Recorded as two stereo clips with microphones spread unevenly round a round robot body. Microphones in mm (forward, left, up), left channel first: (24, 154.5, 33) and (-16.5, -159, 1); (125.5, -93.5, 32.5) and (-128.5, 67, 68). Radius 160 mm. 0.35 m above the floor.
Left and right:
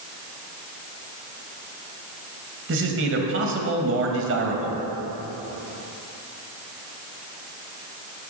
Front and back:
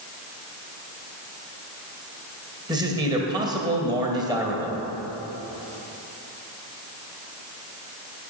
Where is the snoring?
No snoring in this recording.